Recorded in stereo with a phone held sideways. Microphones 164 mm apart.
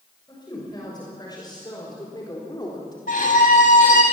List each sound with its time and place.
0.3 s a woman speaking: 25° left (ahead or behind), 6.5 m
3.1 s a violin: 60° left (ahead or behind), 7 m